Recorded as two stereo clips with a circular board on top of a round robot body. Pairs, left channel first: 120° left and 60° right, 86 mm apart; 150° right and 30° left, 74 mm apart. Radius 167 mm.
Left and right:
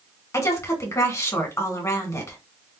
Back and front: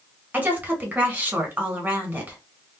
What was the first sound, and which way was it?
A woman speaking, 85° left.